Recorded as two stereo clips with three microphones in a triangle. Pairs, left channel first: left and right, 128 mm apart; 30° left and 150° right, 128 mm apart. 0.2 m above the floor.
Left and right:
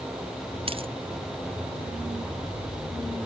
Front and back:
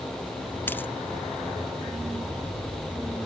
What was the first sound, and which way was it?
A dropped coin, 45° right.